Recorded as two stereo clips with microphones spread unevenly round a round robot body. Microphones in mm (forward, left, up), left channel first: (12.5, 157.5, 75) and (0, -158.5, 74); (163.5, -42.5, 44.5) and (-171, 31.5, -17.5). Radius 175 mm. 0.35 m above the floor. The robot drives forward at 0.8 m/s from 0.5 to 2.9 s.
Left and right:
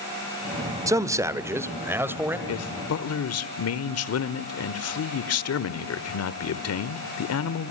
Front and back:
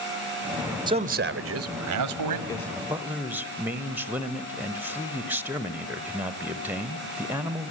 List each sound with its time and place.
0.9 s a man speaking: 160° right, 0.8 m; by 2.4 s 175° right, 1.7 m
2.5 s a man speaking: 75° left, 1.3 m; by 7.7 s 95° left, 1.2 m